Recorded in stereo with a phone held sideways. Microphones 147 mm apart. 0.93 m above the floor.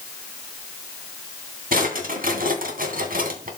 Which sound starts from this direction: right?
A drawer, at 1.7 s.